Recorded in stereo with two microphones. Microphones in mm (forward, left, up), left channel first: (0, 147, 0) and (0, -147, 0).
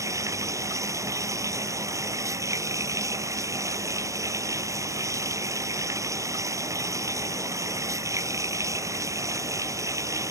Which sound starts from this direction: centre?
Running water, at 0.0 s.